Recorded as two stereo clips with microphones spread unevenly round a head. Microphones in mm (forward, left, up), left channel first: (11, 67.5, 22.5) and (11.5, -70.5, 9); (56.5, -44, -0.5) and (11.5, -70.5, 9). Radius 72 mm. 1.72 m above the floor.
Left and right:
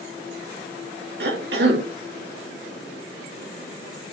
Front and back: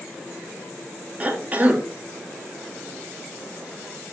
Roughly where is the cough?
Right.